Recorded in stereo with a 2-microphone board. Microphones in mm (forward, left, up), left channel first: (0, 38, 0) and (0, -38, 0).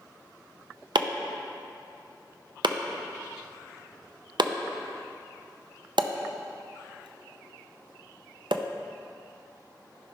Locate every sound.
0.9 s chopping: 80° right, 0.5 m